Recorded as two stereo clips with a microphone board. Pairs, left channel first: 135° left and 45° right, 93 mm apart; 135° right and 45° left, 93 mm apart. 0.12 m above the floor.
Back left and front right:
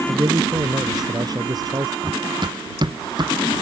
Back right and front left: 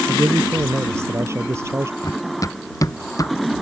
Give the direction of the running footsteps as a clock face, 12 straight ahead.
3 o'clock.